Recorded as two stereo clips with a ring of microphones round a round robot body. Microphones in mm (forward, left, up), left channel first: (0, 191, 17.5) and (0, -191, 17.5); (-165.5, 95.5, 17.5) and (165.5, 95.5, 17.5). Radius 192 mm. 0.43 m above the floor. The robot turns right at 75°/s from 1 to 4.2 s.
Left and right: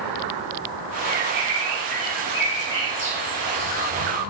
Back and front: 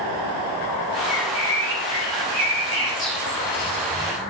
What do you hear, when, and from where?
1.1 s a bird: 55° right, 1.7 m; by 3.9 s 155° left, 1.7 m